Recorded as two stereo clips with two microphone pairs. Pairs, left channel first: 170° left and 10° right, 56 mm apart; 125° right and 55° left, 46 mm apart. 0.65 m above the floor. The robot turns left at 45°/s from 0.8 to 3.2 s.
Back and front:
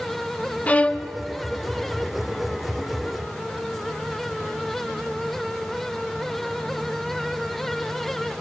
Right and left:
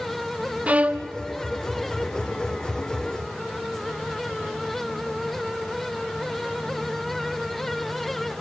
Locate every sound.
0.7 s a violin: 115° left, 0.8 m; by 1.1 s 100° left, 0.8 m